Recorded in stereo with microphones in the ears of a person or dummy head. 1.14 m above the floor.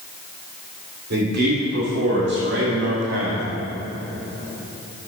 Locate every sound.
1.1 s a man speaking: 55° right (ahead or behind), 3 m; by 3.5 s 65° right (ahead or behind), 1.7 m